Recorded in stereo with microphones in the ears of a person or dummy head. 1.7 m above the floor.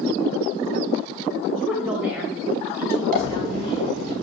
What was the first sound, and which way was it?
A woman speaking, centre (ahead or behind).